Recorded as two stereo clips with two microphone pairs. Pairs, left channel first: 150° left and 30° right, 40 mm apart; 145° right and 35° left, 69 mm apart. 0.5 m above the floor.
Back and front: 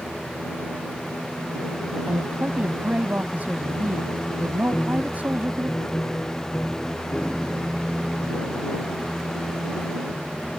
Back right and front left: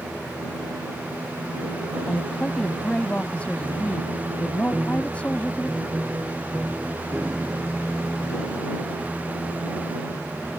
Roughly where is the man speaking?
Right.